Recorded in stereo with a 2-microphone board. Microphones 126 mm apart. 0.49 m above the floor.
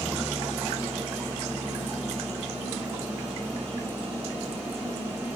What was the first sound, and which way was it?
An engine running, 15° right (ahead or behind).